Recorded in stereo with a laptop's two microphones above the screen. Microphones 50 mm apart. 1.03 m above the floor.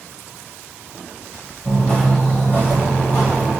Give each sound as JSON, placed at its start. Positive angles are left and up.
{"t": 1.6, "sound": "footsteps", "side_deg": 25, "distance_m": 1.4}